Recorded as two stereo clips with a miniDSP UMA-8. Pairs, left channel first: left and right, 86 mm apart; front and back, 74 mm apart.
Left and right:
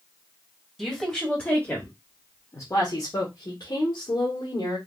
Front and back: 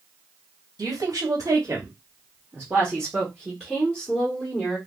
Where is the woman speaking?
Straight behind, 1.3 m; by 4.8 s 75° left, 1.7 m.